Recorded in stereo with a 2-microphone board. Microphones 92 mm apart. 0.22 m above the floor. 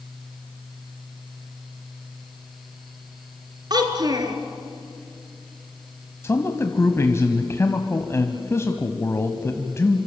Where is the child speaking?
50° right (ahead or behind), 3 m.